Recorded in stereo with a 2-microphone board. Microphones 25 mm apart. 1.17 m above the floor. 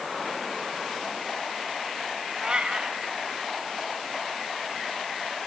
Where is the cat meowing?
40° right (ahead or behind), 2.5 m.